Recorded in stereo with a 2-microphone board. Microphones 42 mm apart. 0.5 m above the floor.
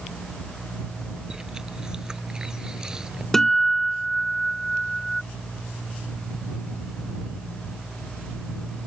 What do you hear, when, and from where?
1.3 s chewing: 15° right (ahead or behind)
3.3 s a guitar: 10° left (ahead or behind)